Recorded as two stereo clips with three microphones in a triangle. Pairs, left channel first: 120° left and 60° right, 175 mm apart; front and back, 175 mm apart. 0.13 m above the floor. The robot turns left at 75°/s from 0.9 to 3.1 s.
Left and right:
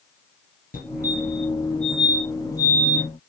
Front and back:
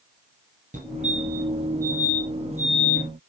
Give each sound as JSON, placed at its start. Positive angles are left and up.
{"t": 0.7, "sound": "a fire alarm", "azimuth_deg": 145, "distance_m": 5.0}